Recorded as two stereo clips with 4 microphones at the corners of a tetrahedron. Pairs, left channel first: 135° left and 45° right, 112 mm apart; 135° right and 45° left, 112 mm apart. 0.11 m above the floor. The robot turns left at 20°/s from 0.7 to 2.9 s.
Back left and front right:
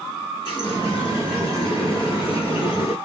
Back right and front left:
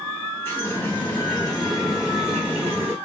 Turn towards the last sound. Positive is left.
turn(degrees=115)